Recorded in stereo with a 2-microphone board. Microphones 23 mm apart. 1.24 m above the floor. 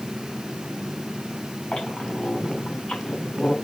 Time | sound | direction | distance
1.7 | a squeak | 45° left (ahead or behind) | 5.5 m